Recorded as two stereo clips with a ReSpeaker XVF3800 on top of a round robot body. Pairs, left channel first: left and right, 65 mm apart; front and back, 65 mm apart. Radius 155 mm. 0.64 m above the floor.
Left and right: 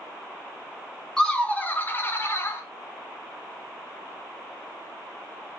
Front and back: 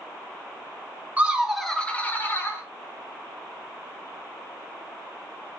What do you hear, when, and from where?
1.2 s laughter: 155° left, 0.8 m; by 2.6 s 45° left, 1.2 m